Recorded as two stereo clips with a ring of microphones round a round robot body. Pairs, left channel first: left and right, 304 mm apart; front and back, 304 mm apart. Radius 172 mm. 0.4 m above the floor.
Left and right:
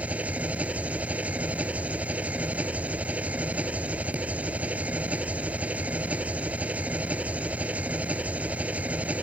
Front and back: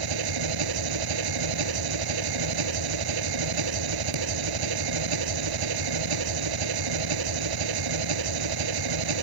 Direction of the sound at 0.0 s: 175° right.